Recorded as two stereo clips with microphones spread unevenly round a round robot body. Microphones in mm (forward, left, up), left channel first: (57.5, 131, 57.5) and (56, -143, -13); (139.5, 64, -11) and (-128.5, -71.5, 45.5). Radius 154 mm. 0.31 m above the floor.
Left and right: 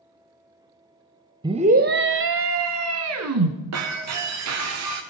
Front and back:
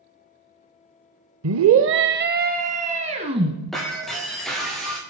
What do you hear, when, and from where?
1.4 s a scream: 135° right, 1.1 m; by 3.5 s 75° right, 3 m
3.7 s breaking glass: 60° right, 5 m